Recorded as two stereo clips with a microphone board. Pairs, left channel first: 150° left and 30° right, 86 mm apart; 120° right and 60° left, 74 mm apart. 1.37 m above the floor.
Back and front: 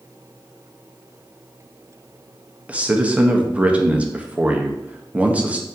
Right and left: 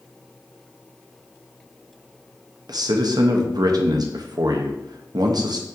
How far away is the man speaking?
About 0.6 m.